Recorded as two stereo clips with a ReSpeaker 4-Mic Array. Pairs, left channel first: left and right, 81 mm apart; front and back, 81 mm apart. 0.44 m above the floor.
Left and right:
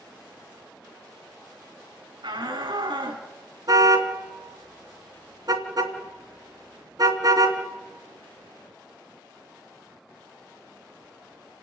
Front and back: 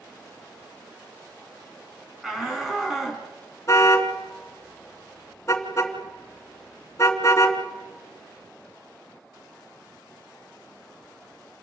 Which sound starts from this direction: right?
A shout, at 2.2 s.